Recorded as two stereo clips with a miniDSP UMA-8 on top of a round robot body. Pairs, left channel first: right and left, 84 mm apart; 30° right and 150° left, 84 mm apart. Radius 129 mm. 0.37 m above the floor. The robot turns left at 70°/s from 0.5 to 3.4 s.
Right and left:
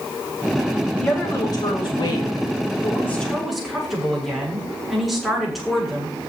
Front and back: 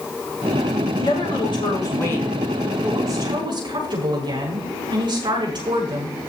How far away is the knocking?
No knocking in this recording.